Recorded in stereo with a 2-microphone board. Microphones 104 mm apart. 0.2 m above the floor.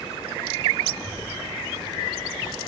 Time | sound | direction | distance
0.9 | a child speaking | 15° left (ahead or behind) | 2.5 m